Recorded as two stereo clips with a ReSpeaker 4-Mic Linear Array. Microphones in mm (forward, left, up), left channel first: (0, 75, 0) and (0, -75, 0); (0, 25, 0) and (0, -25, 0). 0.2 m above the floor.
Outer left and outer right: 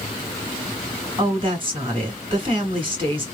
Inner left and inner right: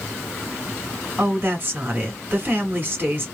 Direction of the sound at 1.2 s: 35° right (ahead or behind).